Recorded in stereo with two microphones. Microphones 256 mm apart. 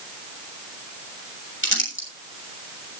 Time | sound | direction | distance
1.6 | crumpling | 45° left (ahead or behind) | 7 m